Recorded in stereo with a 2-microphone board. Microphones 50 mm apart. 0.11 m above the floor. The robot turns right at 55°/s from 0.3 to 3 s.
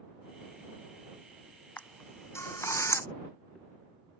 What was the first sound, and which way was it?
A camera shutter, 35° left (ahead or behind).